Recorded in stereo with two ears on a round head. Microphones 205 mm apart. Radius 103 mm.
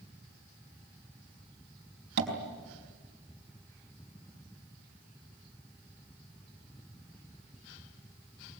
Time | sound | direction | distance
2.2 | tapping | 45° right (ahead or behind) | 4.5 m